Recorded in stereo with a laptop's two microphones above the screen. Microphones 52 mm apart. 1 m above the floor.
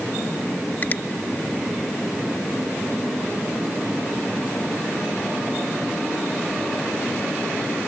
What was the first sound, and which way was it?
A finger snap, 40° left (ahead or behind).